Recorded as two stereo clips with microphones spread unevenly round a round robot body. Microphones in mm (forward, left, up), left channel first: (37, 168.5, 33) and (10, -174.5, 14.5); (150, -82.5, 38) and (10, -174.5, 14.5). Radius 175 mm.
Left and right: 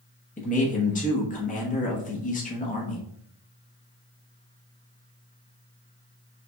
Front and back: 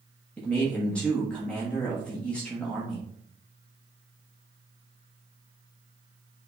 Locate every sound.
0.4 s a man speaking: 125° left, 1.0 m